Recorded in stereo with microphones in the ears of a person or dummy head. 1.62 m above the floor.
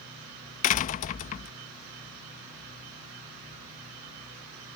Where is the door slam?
40° left (ahead or behind).